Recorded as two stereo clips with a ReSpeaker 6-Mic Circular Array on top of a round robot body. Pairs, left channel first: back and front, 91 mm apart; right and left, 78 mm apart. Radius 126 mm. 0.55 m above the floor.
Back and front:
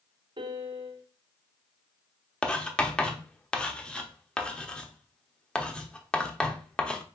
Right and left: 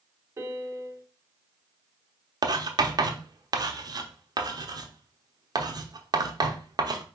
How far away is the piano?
About 0.6 m.